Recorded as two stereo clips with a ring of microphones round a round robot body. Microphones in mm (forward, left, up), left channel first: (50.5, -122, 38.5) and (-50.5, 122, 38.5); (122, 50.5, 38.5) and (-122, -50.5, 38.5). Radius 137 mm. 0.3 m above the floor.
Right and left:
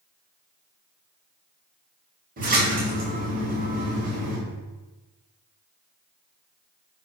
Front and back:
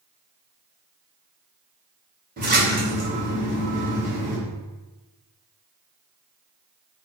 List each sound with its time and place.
2.4 s a splash: 160° left, 2 m